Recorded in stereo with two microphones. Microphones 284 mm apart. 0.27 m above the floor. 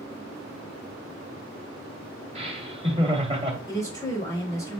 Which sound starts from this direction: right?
Laughter, at 2.4 s.